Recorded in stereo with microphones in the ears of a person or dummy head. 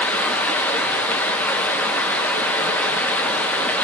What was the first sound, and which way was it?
Running water, 5° left (ahead or behind).